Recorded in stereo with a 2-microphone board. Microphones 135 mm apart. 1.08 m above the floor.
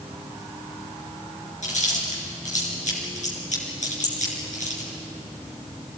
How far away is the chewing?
About 5 m.